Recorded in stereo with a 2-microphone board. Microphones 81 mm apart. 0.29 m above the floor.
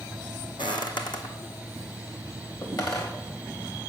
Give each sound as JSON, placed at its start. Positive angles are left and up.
{"t": 0.6, "sound": "footsteps", "side_deg": 75, "distance_m": 1.0}